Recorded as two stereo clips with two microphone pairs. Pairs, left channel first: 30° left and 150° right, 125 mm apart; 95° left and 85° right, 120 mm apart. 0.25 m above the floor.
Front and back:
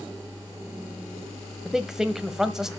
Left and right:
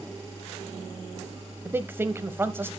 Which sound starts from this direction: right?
A man speaking, at 1.6 s.